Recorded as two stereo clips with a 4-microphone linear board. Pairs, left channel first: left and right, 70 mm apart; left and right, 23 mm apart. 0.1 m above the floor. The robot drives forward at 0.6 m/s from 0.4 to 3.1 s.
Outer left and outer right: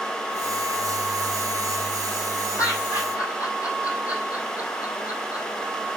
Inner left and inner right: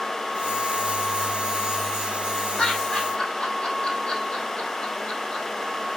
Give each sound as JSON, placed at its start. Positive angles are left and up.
{"t": 2.6, "sound": "laughter", "side_deg": 50, "distance_m": 3.5}